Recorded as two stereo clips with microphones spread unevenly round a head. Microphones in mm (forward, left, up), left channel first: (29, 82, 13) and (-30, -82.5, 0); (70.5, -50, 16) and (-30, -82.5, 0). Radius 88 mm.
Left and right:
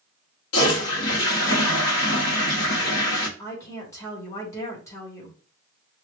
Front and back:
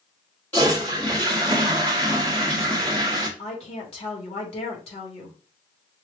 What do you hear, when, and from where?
0.5 s a toilet flushing: 95° left, 1.2 m
3.4 s a woman speaking: 5° right, 1.8 m